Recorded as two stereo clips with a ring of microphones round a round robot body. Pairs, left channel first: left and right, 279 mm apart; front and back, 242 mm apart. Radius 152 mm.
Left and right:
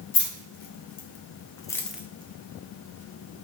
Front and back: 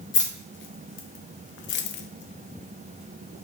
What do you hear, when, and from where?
0.1 s keys jangling: 40° left, 1.3 m; by 3.4 s 105° right, 0.8 m